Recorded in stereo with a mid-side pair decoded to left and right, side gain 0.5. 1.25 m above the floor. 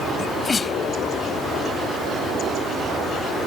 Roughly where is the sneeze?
Ahead left.